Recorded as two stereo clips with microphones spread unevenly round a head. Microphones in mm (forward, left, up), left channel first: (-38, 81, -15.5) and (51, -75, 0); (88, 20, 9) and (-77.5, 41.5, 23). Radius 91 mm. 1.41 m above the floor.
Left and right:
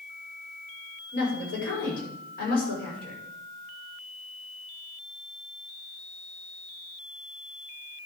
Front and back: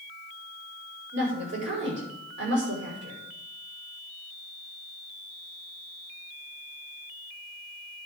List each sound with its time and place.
1.1 s a woman speaking: 165° left, 6 m